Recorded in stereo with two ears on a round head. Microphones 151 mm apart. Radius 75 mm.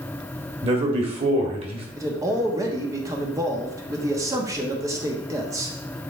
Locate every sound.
0.6 s a man speaking: 35° right (ahead or behind), 1.7 m
2.0 s a man speaking: 20° right (ahead or behind), 1.0 m